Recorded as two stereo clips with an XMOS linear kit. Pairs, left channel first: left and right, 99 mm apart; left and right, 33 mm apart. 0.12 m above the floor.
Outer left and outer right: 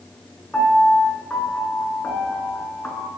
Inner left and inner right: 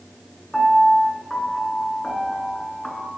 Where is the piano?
15° left (ahead or behind), 1.2 m.